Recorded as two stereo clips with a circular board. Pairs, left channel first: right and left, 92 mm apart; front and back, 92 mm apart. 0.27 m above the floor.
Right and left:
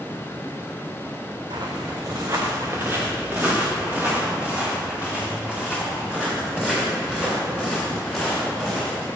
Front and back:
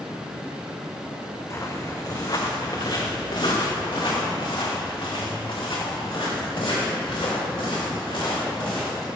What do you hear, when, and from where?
1.5 s footsteps: 60° left, 1.3 m; by 9.1 s 5° left, 6 m